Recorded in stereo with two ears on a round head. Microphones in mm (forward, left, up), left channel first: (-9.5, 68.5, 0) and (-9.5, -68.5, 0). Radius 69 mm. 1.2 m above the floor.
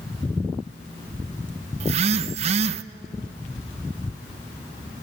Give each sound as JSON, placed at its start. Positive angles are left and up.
{"t": 1.8, "sound": "a phone buzzing", "side_deg": -45, "distance_m": 0.6}